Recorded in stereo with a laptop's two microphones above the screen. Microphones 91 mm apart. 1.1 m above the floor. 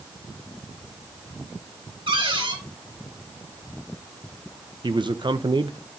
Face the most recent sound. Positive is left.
turn(degrees=-60)  # may be behind; listen again after turning